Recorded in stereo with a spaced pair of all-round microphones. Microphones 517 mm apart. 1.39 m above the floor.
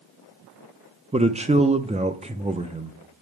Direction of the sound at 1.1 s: 15° right (ahead or behind).